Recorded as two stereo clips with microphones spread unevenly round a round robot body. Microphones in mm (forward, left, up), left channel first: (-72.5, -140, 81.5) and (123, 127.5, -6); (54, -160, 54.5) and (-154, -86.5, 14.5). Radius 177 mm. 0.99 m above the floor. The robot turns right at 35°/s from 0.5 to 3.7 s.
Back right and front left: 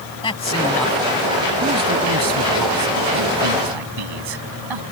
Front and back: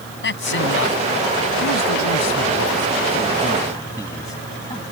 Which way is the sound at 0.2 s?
50° right.